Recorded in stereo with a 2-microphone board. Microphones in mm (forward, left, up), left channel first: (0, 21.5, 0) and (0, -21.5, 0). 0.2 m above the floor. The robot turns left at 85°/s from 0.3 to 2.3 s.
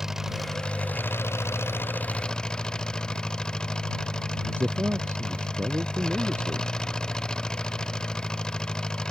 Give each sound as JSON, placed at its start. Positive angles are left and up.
{"t": 0.0, "sound": "an engine running", "azimuth_deg": -170}
{"t": 4.4, "sound": "a man speaking", "side_deg": -55}